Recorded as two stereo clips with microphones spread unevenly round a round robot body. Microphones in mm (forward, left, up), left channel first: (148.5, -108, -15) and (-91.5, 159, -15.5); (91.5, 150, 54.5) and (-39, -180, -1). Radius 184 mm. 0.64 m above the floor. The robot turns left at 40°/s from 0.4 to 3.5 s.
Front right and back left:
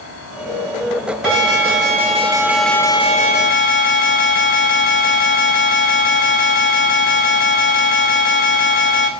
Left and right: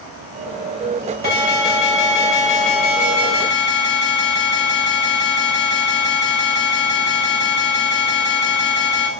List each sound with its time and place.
1.2 s an alarm: 95° left, 2.5 m; by 9.1 s 5° left, 2.5 m